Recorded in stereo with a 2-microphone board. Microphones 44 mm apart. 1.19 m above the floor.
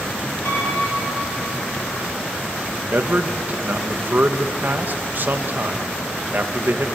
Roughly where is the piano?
Left.